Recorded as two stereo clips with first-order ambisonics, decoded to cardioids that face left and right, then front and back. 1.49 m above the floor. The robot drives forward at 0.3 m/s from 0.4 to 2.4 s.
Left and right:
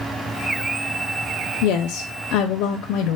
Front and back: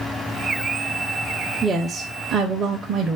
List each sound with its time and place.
1.6 s a woman speaking: 100° left, 0.5 m; by 3.2 s 125° left, 0.6 m